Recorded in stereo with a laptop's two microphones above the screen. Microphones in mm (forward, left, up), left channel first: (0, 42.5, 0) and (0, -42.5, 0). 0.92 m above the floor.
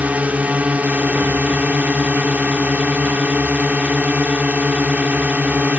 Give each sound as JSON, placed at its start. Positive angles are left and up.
{"t": 0.0, "sound": "a drone", "side_deg": -15}